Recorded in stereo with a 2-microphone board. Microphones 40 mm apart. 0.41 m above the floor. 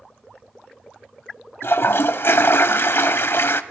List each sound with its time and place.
1.6 s a toilet flushing: 70° left (ahead or behind), 0.8 m